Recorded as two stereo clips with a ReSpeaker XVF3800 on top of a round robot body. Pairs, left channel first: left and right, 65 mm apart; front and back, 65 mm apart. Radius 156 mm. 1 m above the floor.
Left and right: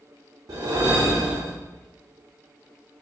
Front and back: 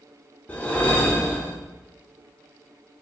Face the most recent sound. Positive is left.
turn(degrees=-65)